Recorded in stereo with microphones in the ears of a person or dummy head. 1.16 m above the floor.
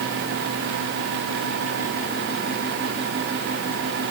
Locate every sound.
Only background noise.